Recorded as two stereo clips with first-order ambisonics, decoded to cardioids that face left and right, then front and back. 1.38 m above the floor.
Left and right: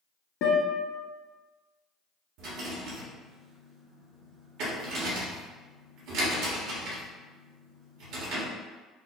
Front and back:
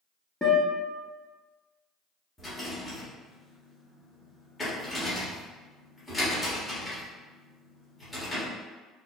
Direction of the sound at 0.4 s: 80° left.